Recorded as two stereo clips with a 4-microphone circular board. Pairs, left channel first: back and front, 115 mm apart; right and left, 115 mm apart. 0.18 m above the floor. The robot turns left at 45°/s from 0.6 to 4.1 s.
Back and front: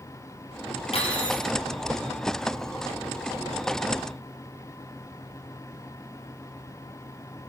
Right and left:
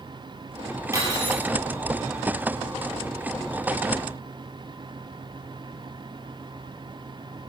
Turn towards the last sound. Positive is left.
turn(degrees=10)